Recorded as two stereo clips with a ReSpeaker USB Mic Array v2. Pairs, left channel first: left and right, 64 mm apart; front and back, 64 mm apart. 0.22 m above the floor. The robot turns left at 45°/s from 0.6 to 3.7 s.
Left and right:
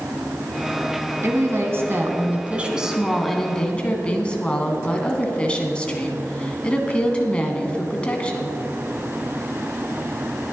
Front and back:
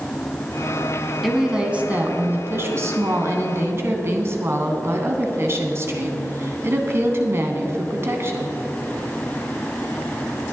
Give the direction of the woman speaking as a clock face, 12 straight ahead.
3 o'clock.